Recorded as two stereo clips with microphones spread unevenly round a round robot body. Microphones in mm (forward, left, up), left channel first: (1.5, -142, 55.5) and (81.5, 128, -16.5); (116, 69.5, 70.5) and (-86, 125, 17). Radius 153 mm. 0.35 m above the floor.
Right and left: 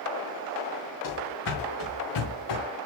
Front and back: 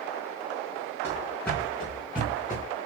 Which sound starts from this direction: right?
Running footsteps, at 1.0 s.